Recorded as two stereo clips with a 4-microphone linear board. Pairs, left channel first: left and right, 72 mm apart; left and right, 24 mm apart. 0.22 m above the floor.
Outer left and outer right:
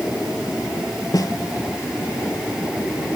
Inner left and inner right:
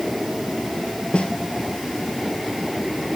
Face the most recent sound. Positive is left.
turn(degrees=60)  # may be behind; listen again after turning